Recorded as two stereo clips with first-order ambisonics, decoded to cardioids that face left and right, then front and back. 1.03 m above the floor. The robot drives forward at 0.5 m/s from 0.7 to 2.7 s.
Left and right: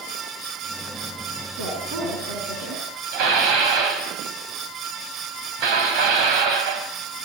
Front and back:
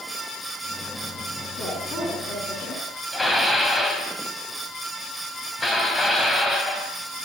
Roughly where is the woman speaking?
Ahead right.